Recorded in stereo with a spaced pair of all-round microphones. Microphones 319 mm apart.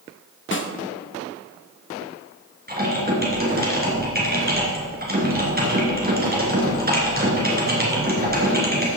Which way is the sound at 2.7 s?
30° right (ahead or behind).